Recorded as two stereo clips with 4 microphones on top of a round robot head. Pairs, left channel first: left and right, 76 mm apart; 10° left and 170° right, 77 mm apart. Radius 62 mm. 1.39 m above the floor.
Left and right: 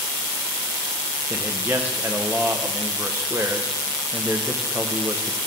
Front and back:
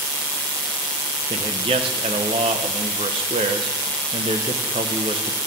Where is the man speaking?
160° right, 0.6 m.